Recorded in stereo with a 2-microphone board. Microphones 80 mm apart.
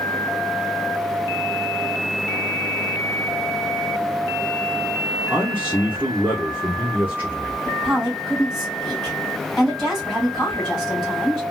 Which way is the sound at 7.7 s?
Centre (ahead or behind).